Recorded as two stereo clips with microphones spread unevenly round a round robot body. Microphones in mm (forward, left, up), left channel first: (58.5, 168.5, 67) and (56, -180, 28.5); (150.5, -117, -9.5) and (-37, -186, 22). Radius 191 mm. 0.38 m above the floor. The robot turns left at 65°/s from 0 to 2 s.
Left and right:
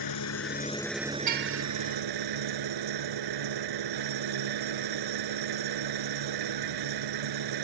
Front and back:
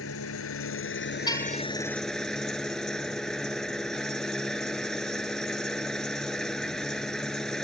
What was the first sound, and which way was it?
An engine running, 60° left.